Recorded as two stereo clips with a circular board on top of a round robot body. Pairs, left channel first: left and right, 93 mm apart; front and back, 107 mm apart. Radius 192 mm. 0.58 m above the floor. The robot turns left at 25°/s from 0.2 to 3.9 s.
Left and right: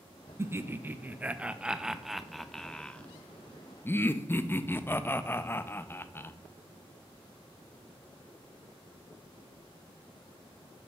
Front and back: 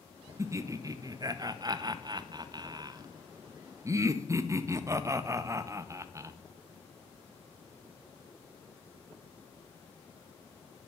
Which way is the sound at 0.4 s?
135° right.